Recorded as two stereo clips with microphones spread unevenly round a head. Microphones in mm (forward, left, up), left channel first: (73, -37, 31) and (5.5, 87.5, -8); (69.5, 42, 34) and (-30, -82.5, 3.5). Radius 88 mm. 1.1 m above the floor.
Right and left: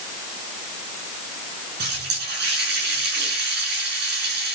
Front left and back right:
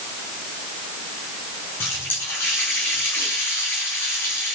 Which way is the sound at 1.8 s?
130° left.